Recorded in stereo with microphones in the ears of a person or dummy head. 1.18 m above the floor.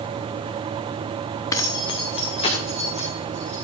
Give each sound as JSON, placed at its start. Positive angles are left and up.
{"t": 1.5, "sound": "keys jangling", "side_deg": 15, "distance_m": 0.8}